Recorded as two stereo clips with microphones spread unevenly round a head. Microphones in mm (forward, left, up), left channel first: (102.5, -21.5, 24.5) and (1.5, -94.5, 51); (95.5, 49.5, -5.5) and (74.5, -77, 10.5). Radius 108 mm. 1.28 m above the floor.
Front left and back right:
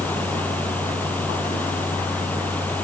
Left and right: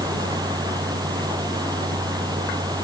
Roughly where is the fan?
Ahead right.